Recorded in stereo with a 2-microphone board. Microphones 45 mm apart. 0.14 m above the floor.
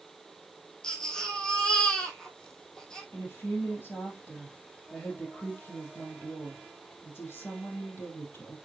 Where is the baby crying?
15° left (ahead or behind), 2.0 m.